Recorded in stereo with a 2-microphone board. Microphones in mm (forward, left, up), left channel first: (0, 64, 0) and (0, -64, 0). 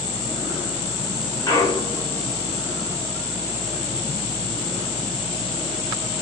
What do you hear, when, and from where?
1.5 s a clunk: 30° left (ahead or behind), 1.4 m